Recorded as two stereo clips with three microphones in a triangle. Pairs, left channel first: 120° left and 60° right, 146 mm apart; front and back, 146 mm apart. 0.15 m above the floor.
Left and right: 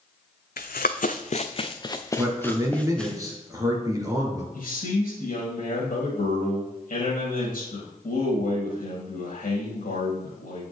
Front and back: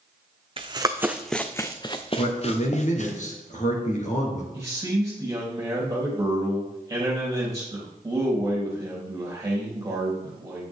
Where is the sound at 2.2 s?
Straight ahead, 2 m.